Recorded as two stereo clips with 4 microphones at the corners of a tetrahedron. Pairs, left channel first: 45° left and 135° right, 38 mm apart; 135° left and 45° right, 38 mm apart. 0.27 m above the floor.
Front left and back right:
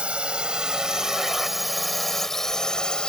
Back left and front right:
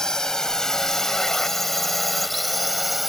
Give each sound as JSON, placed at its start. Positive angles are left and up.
{"t": 0.0, "sound": "a drone", "azimuth_deg": -160}